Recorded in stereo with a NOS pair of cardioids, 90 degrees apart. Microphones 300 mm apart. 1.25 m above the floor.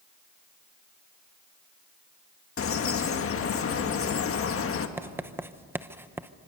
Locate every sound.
2.6 s a bird: 45° left, 1.7 m
5.0 s writing: 5° right, 0.8 m